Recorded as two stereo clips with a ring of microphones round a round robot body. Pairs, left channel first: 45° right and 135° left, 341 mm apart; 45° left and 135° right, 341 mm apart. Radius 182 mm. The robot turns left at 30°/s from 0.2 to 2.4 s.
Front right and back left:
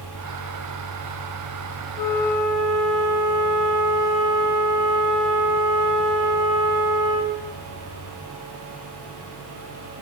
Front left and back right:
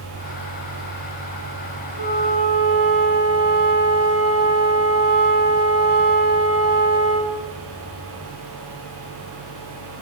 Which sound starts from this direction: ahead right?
A flute, at 2.0 s.